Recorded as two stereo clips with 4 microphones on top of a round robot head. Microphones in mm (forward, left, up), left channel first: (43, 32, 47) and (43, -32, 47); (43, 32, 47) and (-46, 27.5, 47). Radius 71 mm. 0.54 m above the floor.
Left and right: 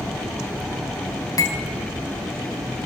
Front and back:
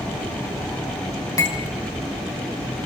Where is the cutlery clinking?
60° left, 2.5 m.